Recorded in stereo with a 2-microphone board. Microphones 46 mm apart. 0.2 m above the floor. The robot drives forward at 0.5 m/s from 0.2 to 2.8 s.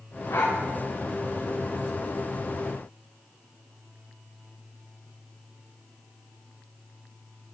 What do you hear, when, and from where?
0.3 s a dog barking: 75° left (ahead or behind), 6 m; by 0.6 s 80° left, 6 m